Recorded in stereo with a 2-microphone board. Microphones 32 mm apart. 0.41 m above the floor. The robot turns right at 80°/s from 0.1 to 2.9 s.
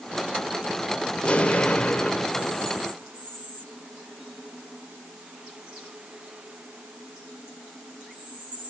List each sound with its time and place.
1.2 s an explosion: 60° left, 1.3 m; by 2.9 s 165° right, 1.3 m